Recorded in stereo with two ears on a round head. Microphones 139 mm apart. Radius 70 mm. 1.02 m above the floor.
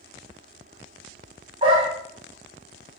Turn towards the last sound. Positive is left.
turn(degrees=-35)  # may be behind; listen again after turning